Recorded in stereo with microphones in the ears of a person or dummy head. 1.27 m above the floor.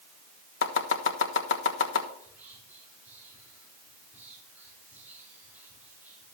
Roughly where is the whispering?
Centre.